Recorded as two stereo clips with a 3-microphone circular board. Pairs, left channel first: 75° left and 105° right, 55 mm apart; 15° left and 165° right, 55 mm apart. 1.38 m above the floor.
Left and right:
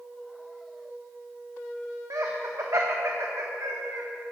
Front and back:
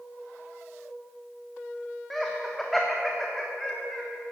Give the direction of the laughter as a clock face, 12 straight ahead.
2 o'clock.